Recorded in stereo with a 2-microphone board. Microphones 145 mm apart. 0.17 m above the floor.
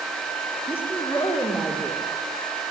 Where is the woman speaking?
15° left (ahead or behind), 5 m.